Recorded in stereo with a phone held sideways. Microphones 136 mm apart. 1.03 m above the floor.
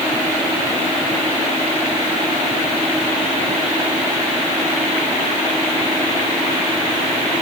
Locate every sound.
Only background noise.